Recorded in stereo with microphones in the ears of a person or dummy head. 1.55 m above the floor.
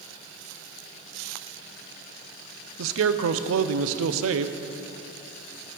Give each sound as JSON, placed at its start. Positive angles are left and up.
{"t": 2.8, "sound": "a man speaking", "side_deg": -80, "distance_m": 0.5}